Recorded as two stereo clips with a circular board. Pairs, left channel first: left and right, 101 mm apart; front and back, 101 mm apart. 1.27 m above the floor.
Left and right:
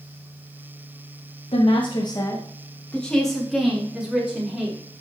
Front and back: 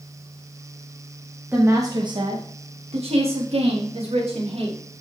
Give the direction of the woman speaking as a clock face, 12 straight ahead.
8 o'clock.